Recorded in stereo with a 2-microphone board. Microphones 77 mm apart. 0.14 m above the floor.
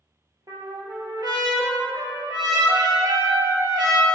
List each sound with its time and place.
0.5 s a trumpet: 55° right (ahead or behind), 0.5 m